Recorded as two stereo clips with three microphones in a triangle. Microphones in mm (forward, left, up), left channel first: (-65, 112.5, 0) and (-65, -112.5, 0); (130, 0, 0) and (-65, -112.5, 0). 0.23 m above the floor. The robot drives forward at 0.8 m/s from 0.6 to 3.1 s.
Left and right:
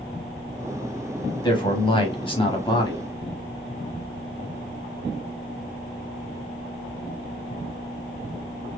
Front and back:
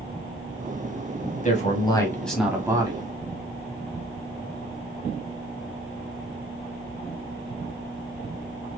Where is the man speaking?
35° left, 1.1 m; by 3.0 s 155° left, 1.2 m.